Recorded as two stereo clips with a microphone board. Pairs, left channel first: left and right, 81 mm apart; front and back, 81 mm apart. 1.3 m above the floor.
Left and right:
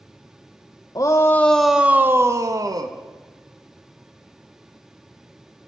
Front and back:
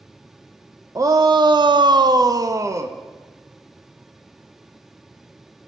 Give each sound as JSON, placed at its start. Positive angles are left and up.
{"t": 0.9, "sound": "a shout", "azimuth_deg": 135, "distance_m": 0.7}